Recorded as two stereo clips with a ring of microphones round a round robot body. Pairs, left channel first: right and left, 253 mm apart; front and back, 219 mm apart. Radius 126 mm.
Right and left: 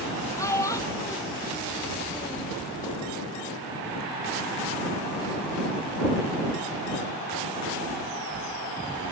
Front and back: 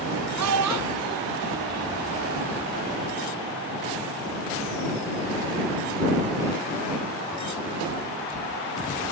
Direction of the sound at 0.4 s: 170° right.